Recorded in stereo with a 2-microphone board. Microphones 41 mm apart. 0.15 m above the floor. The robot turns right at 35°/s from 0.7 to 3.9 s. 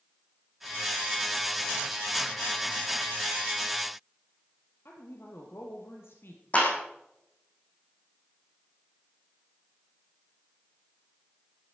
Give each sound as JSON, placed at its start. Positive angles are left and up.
{"t": 4.8, "sound": "a woman speaking", "side_deg": 70, "distance_m": 4.0}
{"t": 6.5, "sound": "a clap", "side_deg": 35, "distance_m": 5.5}